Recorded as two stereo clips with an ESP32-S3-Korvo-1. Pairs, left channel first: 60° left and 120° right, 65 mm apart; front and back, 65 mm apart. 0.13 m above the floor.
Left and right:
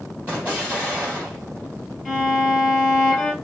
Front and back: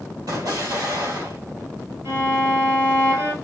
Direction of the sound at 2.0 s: 160° left.